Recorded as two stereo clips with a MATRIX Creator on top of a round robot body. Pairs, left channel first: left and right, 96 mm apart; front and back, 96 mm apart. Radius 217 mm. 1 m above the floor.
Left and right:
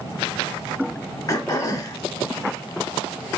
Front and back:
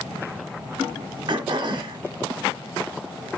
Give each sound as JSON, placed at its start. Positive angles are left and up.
{"t": 1.3, "sound": "throat clearing", "azimuth_deg": 140, "distance_m": 0.8}